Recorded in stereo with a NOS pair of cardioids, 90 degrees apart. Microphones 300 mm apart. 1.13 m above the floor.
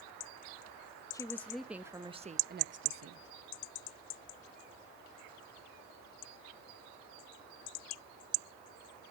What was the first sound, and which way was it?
A woman speaking, 10° left.